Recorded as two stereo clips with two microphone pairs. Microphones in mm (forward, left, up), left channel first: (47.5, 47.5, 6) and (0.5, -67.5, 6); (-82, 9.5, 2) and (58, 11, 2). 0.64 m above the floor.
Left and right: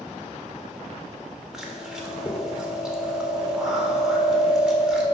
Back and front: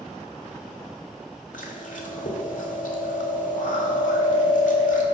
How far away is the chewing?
About 1.7 m.